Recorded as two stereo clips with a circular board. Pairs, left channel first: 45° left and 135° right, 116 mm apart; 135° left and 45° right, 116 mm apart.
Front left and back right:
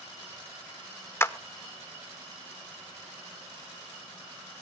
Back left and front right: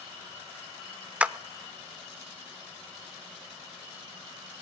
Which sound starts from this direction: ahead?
A clap, at 1.2 s.